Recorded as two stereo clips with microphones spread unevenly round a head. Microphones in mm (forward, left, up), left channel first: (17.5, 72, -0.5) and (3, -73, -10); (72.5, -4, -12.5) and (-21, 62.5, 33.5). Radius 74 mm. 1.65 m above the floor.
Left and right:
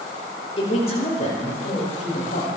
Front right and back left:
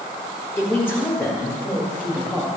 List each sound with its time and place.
0.6 s a man speaking: 40° left, 5.5 m; by 2.5 s 50° left, 7 m